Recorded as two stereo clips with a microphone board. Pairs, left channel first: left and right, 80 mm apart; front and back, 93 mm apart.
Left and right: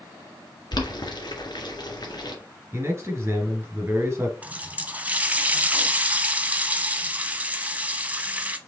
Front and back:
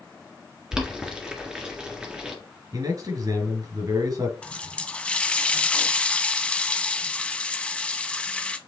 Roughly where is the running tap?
Ahead right.